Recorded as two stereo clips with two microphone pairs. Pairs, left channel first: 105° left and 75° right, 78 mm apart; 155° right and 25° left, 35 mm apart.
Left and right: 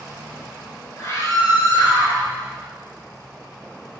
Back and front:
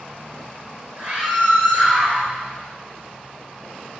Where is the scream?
60° left, 3.5 m.